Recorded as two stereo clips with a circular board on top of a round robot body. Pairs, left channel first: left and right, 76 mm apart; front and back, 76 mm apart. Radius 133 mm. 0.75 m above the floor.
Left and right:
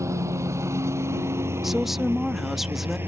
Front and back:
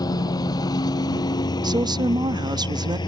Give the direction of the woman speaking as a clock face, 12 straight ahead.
6 o'clock.